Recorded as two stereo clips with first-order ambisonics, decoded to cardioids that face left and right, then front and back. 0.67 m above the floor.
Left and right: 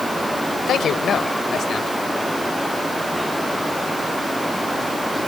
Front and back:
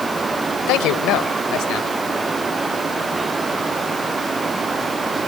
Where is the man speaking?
30° left.